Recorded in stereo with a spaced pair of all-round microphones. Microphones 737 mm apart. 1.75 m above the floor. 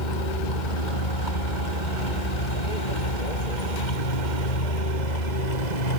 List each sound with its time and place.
0.0 s a vehicle: 80° left; by 6.0 s 65° left (ahead or behind)